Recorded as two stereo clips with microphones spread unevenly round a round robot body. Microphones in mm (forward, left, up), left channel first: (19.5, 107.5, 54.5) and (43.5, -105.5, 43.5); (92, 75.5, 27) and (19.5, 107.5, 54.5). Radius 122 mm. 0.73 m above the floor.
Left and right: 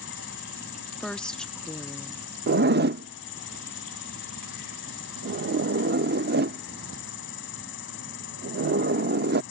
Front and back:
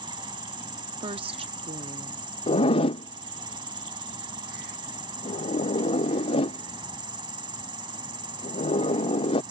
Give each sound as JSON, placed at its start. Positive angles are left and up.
{"t": 0.0, "sound": "an insect", "azimuth_deg": 140}
{"t": 1.0, "sound": "a woman speaking", "azimuth_deg": -175}
{"t": 2.5, "sound": "a zipper", "azimuth_deg": -40}